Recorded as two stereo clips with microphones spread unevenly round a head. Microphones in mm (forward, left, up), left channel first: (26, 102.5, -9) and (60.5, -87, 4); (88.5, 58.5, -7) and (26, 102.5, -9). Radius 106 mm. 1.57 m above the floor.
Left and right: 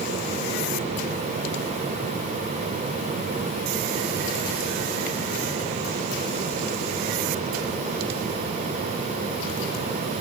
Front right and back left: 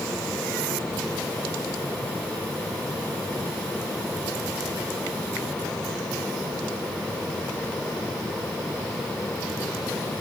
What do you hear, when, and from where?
Only background noise.